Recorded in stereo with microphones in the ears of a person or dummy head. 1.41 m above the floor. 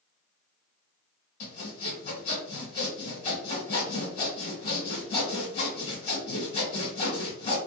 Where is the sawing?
35° left (ahead or behind), 1.1 m.